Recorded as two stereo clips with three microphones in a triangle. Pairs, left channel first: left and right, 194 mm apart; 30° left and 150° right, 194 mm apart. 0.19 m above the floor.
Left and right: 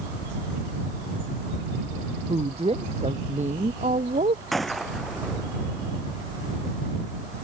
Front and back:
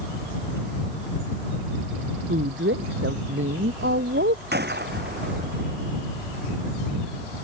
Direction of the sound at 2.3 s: 150° right.